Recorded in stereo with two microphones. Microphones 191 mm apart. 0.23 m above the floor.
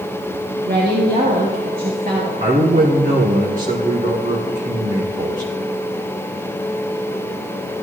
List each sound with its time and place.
0.7 s a woman speaking: 50° right (ahead or behind), 3 m
2.4 s a man speaking: 45° right (ahead or behind), 2 m